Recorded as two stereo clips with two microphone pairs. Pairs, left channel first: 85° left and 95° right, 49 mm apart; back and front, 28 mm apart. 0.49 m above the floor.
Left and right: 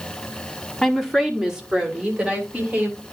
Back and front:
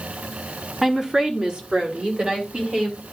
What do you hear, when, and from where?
0.8 s a woman speaking: 20° left, 1.3 m; by 3.0 s 40° right, 4 m